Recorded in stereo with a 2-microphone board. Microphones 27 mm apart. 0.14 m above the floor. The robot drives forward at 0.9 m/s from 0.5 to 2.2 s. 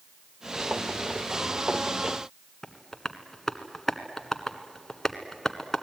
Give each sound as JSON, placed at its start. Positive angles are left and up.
{"t": 2.6, "sound": "tapping", "side_deg": 15, "distance_m": 1.4}